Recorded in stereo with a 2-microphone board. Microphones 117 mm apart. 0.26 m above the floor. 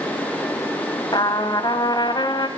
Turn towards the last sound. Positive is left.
turn(degrees=35)  # may be behind; listen again after turning